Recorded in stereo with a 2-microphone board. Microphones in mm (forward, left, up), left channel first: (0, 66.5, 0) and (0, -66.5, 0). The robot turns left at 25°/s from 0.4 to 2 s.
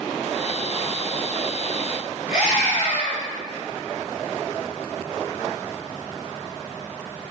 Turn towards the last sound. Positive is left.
turn(degrees=35)  # may be behind; listen again after turning